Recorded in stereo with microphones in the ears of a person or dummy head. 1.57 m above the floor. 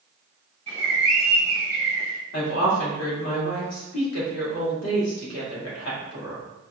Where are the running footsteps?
I don't hear running footsteps.